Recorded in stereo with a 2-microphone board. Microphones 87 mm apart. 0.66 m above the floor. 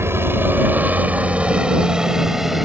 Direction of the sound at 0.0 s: 30° right (ahead or behind).